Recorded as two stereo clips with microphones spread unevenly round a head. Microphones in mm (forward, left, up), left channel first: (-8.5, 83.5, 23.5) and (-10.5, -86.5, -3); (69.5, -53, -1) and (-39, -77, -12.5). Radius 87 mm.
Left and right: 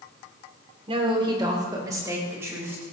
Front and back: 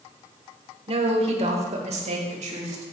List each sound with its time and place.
0.9 s a woman speaking: 145° right, 3 m; by 2.8 s 170° right, 5 m